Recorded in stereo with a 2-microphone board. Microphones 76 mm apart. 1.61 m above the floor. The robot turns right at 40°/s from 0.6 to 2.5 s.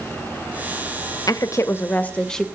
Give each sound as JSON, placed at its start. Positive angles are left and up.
{"t": 1.3, "sound": "a woman speaking", "azimuth_deg": 130, "distance_m": 0.5}